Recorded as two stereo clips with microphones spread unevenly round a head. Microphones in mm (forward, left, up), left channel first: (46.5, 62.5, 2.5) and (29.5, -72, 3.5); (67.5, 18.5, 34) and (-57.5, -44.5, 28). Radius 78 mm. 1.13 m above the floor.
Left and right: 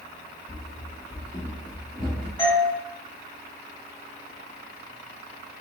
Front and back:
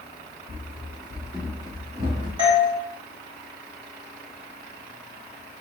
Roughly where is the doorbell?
Behind.